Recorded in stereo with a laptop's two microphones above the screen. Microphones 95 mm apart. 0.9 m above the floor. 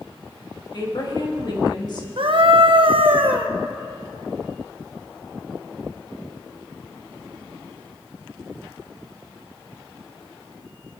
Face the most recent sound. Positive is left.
turn(degrees=-60)  # may be behind; listen again after turning